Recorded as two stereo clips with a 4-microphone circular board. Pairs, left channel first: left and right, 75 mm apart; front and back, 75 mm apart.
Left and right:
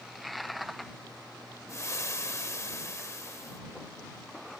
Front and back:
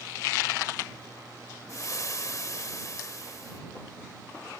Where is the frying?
40° left.